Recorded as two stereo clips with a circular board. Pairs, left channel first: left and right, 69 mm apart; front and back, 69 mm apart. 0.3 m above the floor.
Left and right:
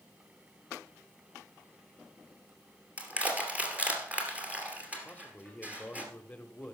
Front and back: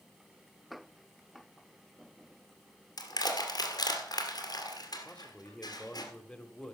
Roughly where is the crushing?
Ahead.